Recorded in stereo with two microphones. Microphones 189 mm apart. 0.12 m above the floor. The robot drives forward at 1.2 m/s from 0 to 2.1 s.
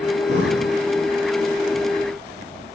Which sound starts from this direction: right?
Breathing, at 0.3 s.